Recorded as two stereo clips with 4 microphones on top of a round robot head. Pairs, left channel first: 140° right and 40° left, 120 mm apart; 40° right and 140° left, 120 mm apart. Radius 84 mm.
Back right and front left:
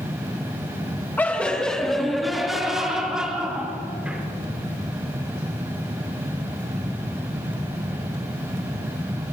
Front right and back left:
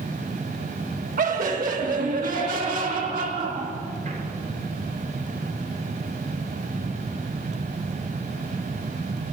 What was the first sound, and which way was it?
Laughter, 145° left.